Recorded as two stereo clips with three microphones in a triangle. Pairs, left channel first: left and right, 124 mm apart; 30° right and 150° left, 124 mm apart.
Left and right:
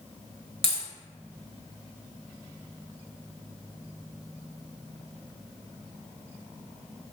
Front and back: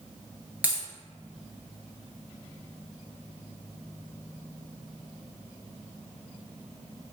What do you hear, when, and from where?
0.6 s a dropped coin: 75° left, 0.7 m